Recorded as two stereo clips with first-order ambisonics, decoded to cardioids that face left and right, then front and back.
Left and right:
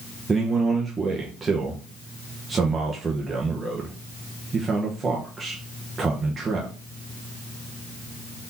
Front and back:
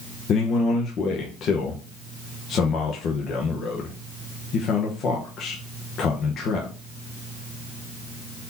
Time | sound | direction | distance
0.3 | a man speaking | 25° right | 0.9 m